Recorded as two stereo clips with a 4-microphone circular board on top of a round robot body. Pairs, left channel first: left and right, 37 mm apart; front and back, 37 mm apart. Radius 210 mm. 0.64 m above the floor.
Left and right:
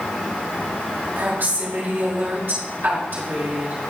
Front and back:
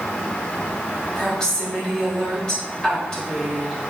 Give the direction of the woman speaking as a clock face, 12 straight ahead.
2 o'clock.